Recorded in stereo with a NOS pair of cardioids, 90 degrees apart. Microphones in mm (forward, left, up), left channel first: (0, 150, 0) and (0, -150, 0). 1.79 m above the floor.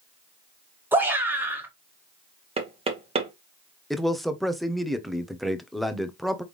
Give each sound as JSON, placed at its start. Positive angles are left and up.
{"t": 0.9, "sound": "a shout", "azimuth_deg": -5, "distance_m": 1.8}
{"t": 2.6, "sound": "knocking", "azimuth_deg": -20, "distance_m": 1.3}
{"t": 3.9, "sound": "a man speaking", "azimuth_deg": 0, "distance_m": 1.0}